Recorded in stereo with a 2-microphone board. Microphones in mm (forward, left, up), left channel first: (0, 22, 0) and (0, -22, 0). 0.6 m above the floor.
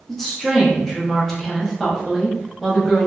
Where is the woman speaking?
5° left (ahead or behind), 0.8 m.